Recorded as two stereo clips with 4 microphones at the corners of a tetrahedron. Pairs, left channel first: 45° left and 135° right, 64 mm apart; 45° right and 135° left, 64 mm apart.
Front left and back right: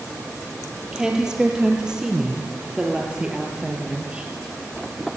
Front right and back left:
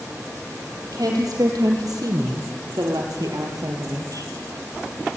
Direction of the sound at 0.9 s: 145° left.